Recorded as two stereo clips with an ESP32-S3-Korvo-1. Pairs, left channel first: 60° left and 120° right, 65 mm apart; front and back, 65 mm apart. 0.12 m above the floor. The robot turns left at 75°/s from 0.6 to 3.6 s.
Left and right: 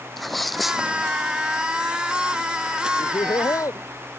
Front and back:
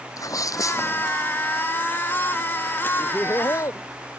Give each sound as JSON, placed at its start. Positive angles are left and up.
{"t": 0.2, "sound": "a sneeze", "azimuth_deg": -30}
{"t": 3.0, "sound": "laughter", "azimuth_deg": 75}